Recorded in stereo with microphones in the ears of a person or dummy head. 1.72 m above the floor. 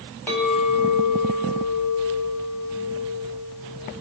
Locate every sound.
0.3 s a clink: 10° left (ahead or behind), 4 m